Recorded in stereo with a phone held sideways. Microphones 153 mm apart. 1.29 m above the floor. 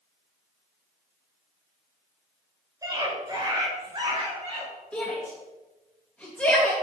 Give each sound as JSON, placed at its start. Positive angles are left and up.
{"t": 2.8, "sound": "a scream", "side_deg": -25, "distance_m": 4.5}
{"t": 4.9, "sound": "a shout", "side_deg": 10, "distance_m": 2.5}